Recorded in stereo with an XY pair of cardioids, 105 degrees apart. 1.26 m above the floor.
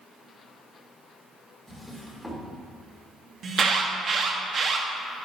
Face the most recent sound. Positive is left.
turn(degrees=-45)